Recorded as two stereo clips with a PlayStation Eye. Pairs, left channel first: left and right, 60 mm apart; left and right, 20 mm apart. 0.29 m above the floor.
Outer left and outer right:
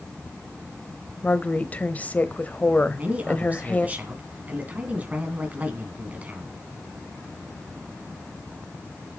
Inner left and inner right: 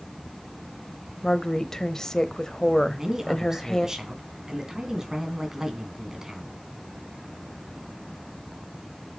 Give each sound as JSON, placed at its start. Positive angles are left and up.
{"t": 1.2, "sound": "a woman speaking", "side_deg": 25, "distance_m": 1.0}
{"t": 2.9, "sound": "a man speaking", "side_deg": -25, "distance_m": 2.5}